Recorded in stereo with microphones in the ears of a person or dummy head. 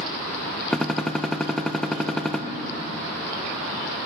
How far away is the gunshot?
About 0.5 m.